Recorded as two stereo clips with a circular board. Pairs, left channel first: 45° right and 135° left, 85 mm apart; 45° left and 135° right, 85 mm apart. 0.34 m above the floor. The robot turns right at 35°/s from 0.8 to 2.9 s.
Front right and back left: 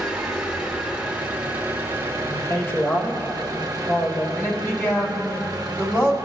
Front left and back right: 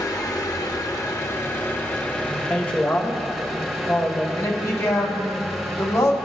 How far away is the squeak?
No squeak in this recording.